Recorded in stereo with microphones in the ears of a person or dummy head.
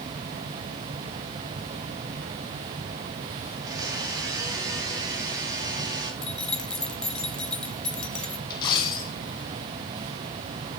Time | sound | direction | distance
3.5 | a blender | 20° right (ahead or behind) | 4.5 m
6.2 | keys jangling | 5° left (ahead or behind) | 0.6 m
8.5 | a dropped coin | 25° left (ahead or behind) | 3 m